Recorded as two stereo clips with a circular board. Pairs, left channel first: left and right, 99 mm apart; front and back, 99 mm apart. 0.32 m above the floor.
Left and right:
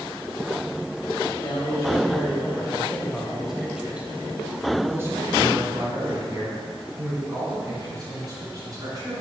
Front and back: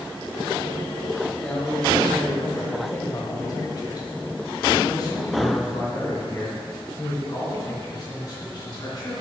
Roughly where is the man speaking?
Left.